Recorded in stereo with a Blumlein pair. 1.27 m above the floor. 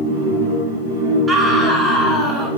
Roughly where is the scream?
Ahead.